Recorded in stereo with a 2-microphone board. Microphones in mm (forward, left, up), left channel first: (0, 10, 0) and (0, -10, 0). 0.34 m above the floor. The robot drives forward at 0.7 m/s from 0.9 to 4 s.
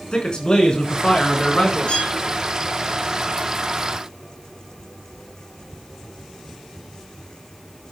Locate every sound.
0.1 s a man speaking: 45° left (ahead or behind), 3.5 m; by 2.0 s 55° left (ahead or behind), 3 m
1.9 s a violin: 70° left (ahead or behind), 5 m